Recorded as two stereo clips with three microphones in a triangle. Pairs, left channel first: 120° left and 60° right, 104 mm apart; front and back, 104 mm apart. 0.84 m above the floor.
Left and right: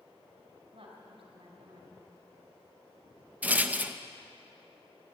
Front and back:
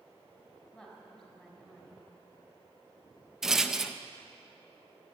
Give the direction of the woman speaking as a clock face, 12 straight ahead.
3 o'clock.